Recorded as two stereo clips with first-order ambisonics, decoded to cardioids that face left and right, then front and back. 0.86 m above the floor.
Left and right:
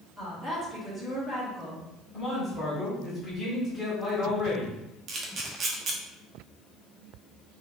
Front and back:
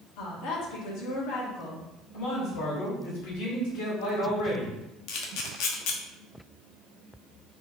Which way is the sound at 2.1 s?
10° left.